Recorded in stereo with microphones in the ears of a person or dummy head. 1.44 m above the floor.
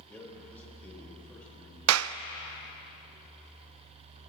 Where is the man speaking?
10° left (ahead or behind), 6 m.